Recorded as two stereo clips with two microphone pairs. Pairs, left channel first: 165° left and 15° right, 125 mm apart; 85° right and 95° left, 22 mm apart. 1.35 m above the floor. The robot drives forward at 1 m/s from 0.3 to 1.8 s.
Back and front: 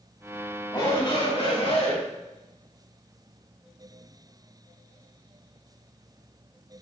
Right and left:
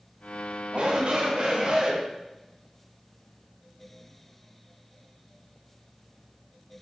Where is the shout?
110° left, 2.5 m; by 2.0 s 130° left, 3 m.